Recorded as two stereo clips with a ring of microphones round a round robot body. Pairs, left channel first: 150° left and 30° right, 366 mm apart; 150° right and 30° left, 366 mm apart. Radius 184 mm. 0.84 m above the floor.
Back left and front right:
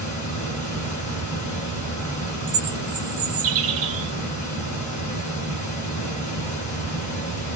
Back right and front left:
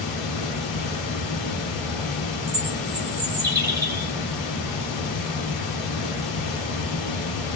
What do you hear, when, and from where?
0.0 s running water: 170° right, 1.4 m
2.5 s a bird: 45° right, 1.1 m